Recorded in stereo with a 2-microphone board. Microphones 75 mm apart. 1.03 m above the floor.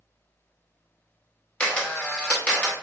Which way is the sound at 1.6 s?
15° left (ahead or behind).